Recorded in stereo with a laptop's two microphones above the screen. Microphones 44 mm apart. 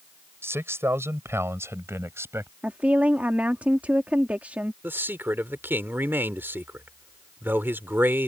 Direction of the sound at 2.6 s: 35° right (ahead or behind).